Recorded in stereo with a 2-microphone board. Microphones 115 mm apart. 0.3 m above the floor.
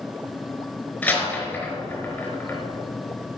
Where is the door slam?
15° left (ahead or behind), 4 m.